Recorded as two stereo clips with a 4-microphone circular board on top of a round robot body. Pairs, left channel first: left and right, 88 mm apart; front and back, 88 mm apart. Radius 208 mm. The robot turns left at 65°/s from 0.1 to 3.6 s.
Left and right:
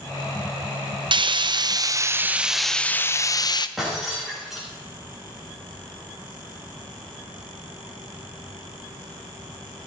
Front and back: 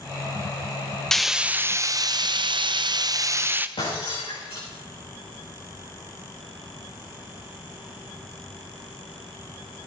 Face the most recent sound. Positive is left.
turn(degrees=-5)